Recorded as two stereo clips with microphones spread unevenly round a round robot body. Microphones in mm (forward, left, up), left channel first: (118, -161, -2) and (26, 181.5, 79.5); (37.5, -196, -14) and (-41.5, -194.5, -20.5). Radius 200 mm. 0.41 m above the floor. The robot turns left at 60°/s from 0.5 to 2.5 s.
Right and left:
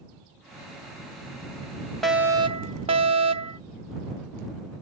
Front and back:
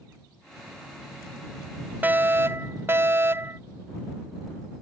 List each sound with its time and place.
2.0 s a fire alarm: 140° right; by 3.6 s 170° right